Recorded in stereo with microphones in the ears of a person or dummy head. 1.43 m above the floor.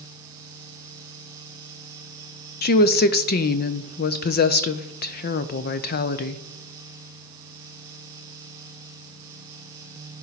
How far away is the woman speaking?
About 0.6 m.